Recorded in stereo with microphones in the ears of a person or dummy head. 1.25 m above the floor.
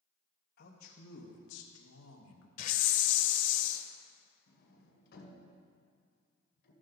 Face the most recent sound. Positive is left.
turn(degrees=65)  # may be behind; listen again after turning